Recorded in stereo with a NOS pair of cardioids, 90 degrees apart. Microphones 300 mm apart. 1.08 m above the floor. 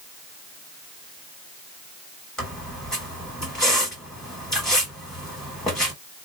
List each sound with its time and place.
2.4 s a squeak: straight ahead, 1.5 m